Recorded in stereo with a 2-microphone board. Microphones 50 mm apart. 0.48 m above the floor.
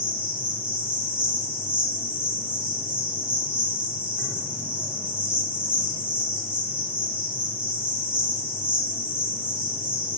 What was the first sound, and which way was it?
An insect, 30° right (ahead or behind).